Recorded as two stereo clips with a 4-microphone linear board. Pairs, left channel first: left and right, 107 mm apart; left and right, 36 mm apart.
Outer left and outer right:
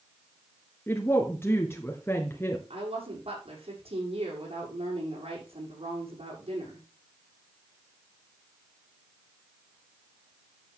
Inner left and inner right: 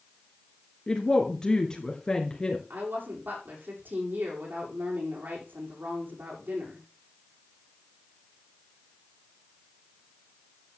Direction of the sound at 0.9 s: 20° left (ahead or behind).